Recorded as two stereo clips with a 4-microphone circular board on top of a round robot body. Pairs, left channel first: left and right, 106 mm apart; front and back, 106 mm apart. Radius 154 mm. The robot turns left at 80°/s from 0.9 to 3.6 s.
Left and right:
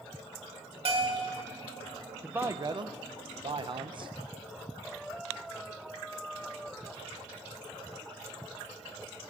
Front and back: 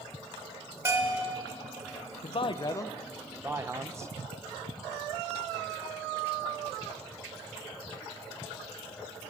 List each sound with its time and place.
0.8 s a bell: 115° right, 1.3 m; by 1.3 s 145° right, 1.3 m
2.2 s a man speaking: 10° right, 0.5 m; by 4.1 s 120° right, 0.5 m